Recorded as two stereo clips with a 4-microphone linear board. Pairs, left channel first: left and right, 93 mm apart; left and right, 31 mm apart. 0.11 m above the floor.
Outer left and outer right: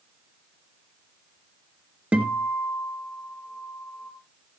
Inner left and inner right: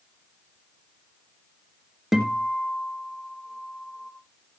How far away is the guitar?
About 2 m.